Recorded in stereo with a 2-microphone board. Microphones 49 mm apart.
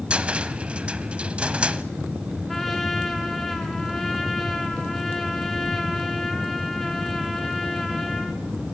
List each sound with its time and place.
0.1 s a cupboard door: 25° right (ahead or behind), 0.9 m
2.5 s a trumpet: 5° left (ahead or behind), 3 m